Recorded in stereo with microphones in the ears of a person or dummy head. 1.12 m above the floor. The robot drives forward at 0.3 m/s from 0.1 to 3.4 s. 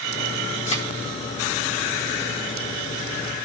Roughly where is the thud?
Left.